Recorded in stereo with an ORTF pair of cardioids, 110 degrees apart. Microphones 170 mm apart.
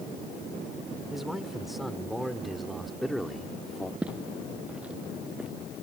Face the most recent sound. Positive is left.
turn(degrees=-5)